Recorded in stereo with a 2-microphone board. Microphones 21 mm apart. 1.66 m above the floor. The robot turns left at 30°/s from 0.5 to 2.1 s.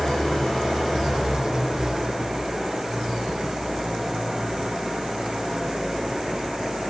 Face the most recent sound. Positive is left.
turn(degrees=-30)